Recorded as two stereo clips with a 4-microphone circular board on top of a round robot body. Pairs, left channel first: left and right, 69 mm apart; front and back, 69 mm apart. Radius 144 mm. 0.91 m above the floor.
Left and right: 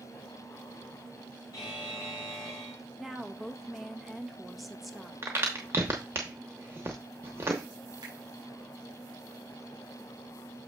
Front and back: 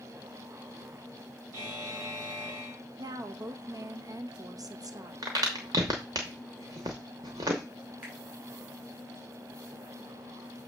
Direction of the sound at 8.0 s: 110° right.